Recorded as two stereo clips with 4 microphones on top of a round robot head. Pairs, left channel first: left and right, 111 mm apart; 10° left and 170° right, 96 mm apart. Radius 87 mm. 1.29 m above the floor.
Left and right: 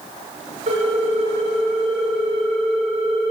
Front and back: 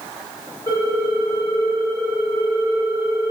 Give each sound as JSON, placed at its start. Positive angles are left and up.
{"t": 0.7, "sound": "a ringtone", "azimuth_deg": -60, "distance_m": 2.0}